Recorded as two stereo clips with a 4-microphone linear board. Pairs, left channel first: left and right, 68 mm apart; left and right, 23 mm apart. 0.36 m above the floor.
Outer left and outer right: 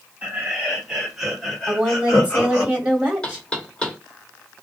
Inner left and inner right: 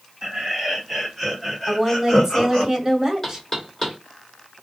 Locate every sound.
0.2 s laughter: 20° right (ahead or behind), 1.7 m; by 2.7 s 30° left (ahead or behind), 1.4 m
1.7 s a woman speaking: 20° right (ahead or behind), 1.6 m
3.2 s knocking: 15° left (ahead or behind), 0.8 m